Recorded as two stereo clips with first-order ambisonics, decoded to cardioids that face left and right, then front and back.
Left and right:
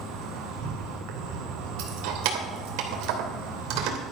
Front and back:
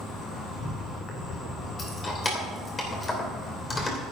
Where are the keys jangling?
75° right, 2.5 m.